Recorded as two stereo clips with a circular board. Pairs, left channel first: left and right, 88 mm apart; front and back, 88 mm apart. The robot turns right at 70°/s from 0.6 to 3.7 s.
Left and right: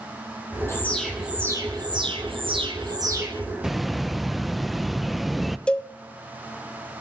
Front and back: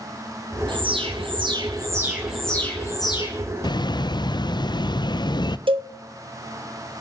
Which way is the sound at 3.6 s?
5° right.